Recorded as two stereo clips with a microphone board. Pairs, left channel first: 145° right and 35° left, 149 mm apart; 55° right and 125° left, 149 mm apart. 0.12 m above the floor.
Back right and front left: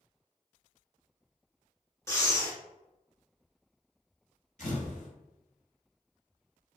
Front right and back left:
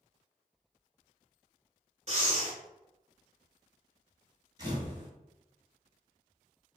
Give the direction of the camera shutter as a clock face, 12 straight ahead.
6 o'clock.